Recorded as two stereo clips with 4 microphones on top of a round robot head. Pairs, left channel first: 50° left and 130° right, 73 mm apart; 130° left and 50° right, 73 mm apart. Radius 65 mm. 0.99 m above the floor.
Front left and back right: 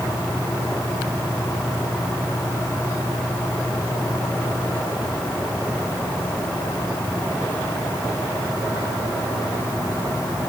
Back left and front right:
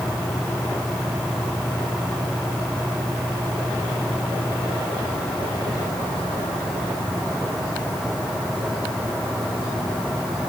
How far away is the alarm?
No alarm in this recording.